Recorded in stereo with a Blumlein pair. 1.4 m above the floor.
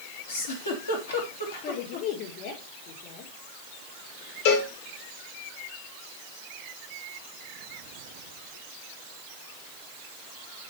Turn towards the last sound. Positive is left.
turn(degrees=55)